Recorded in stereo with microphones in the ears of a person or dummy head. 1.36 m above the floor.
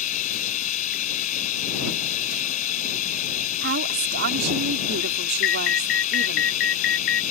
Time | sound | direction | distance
0.0 | running water | 45° left (ahead or behind) | ?
3.6 | a woman speaking | 55° right (ahead or behind) | ?
5.4 | an alarm | 55° left (ahead or behind) | ?